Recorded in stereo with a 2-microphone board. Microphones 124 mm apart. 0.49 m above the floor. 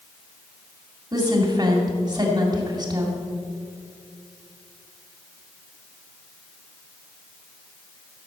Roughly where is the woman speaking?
Right.